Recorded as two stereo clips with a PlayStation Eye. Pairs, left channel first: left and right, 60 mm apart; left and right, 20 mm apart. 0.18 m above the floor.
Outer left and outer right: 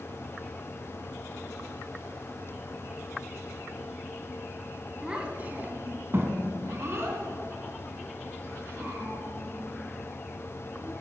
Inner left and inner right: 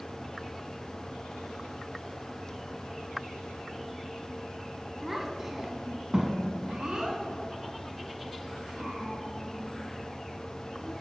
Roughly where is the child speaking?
Centre.